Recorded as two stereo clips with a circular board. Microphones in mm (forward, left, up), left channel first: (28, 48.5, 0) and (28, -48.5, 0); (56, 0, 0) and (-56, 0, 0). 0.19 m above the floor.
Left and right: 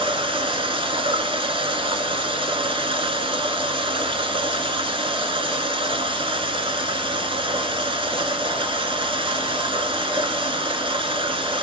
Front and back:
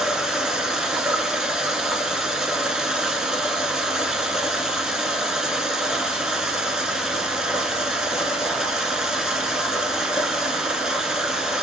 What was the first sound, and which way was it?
Running water, 95° right.